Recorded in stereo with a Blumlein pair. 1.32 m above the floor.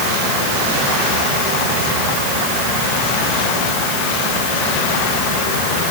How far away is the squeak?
I don't hear a squeak.